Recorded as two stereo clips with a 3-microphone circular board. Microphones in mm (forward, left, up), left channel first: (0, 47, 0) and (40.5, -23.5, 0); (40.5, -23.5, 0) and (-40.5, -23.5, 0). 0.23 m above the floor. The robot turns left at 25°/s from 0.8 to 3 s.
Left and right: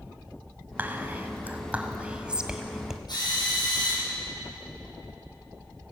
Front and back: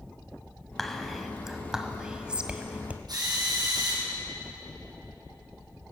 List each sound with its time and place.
0.8 s whispering: 80° right, 1.5 m; by 3.0 s 135° right, 1.5 m
3.1 s a drill: 150° left, 7.5 m